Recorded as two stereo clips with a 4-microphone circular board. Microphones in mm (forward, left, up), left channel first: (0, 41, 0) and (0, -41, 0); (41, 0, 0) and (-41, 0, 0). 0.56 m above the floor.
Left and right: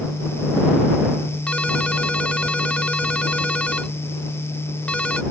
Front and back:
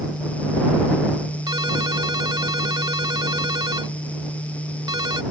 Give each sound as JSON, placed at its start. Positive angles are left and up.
{"t": 1.5, "sound": "a ringtone", "azimuth_deg": 165}